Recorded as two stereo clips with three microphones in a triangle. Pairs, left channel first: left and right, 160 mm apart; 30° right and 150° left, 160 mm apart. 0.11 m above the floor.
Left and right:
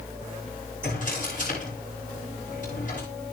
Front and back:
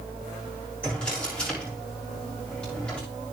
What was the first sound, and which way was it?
A drawer, 55° left.